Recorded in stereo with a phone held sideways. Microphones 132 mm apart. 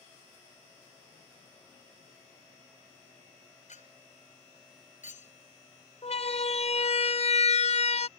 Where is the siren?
55° left (ahead or behind); by 8.1 s 60° left (ahead or behind).